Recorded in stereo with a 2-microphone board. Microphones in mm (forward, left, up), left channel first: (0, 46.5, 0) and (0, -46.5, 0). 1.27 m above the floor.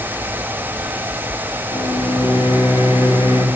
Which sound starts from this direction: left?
A microwave, at 1.7 s.